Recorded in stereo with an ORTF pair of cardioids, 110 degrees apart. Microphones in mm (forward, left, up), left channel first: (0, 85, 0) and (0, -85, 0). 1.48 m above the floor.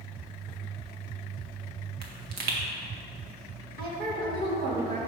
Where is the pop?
65° right, 1.5 m.